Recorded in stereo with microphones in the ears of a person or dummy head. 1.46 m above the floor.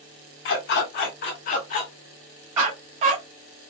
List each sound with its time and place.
0.5 s a dog barking: 60° left (ahead or behind), 1.7 m; by 3.2 s 40° right (ahead or behind), 1.0 m